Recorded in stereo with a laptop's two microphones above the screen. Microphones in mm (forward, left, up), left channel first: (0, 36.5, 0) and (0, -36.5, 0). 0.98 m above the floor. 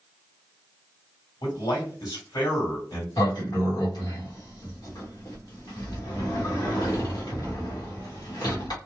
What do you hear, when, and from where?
1.4 s a man speaking: 60° left (ahead or behind), 1.7 m
3.2 s a sliding door: 65° left (ahead or behind), 1.0 m